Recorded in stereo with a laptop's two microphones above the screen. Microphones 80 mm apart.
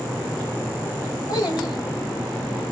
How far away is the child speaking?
About 1.2 m.